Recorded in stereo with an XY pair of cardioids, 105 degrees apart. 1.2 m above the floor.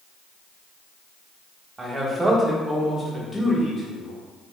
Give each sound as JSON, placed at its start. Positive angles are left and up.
{"t": 1.8, "sound": "a man speaking", "azimuth_deg": -25, "distance_m": 1.5}